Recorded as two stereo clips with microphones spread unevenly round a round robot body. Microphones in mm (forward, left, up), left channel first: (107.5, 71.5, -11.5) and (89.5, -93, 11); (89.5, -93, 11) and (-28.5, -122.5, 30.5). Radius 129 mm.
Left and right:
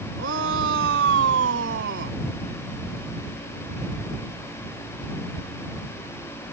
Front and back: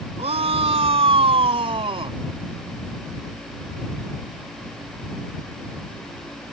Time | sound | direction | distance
0.2 | a shout | 130° right | ?